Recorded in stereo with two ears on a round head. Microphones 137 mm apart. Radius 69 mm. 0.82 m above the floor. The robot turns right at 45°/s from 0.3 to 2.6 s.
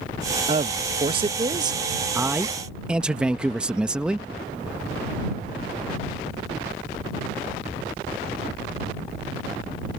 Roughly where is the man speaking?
Right.